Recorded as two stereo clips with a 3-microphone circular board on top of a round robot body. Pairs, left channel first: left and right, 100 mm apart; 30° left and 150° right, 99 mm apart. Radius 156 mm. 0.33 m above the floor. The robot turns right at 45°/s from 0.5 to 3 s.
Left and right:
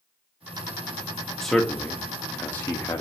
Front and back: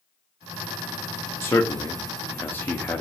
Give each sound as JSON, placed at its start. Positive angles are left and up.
{"t": 1.4, "sound": "a man speaking", "azimuth_deg": 10, "distance_m": 0.8}